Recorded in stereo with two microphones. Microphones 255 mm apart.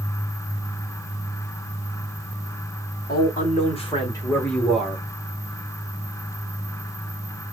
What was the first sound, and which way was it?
A man speaking, 40° left (ahead or behind).